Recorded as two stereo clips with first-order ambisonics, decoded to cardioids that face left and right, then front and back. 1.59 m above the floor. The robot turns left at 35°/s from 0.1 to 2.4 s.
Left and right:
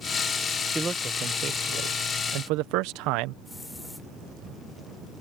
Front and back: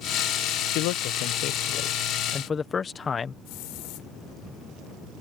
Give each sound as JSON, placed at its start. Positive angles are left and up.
{"t": 0.8, "sound": "a man speaking", "azimuth_deg": -15}
{"t": 3.5, "sound": "a hiss", "azimuth_deg": 5}